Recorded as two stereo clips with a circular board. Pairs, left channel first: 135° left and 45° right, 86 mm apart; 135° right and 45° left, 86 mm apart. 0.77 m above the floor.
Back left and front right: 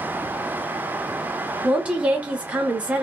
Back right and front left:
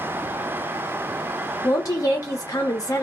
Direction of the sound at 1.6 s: 115° right.